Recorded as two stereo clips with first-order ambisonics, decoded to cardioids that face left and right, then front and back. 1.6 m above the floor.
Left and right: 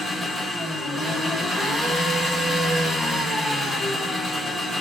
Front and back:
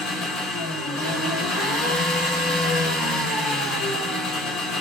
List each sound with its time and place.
0.0 s an engine running: 5° right, 3 m